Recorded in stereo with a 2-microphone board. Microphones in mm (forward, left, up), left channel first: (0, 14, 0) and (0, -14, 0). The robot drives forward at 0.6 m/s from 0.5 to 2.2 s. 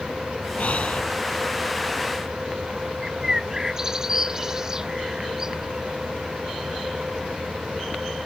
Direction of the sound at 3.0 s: 20° right (ahead or behind).